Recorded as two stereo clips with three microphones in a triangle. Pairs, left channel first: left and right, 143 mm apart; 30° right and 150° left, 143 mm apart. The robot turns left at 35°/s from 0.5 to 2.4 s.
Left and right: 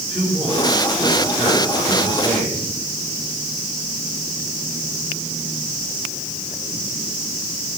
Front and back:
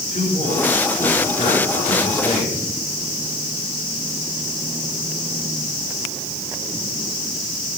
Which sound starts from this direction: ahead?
A man speaking, at 0.1 s.